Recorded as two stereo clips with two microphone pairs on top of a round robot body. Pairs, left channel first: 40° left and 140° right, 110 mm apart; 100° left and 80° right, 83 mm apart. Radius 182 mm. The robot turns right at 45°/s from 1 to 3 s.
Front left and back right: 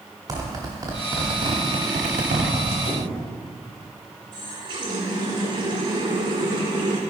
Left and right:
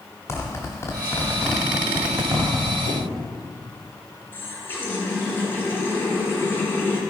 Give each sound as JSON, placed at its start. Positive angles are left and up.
{"t": 0.3, "sound": "a zipper", "azimuth_deg": 165, "distance_m": 0.7}
{"t": 2.9, "sound": "a squeak", "azimuth_deg": 80, "distance_m": 1.5}
{"t": 4.3, "sound": "a running tap", "azimuth_deg": 165, "distance_m": 1.6}